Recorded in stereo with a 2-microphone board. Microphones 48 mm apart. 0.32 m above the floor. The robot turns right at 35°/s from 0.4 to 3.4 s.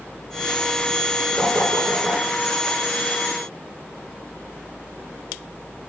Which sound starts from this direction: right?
Knocking, at 1.4 s.